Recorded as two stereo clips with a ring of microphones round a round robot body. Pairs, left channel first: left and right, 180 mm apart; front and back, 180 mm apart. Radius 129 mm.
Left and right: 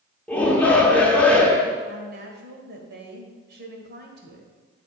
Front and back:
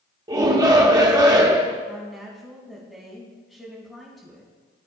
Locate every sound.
0.3 s a shout: 160° left, 0.8 m
1.9 s a woman speaking: 90° right, 2.0 m